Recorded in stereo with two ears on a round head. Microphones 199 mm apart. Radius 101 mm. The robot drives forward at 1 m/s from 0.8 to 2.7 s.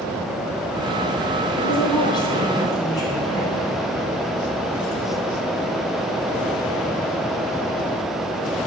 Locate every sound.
1.6 s a woman speaking: 25° left (ahead or behind), 3.5 m; by 3.7 s 20° left (ahead or behind), 4.5 m